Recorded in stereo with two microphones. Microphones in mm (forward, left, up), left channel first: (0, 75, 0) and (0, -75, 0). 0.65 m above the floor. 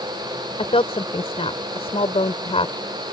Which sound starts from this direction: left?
A woman speaking, at 0.6 s.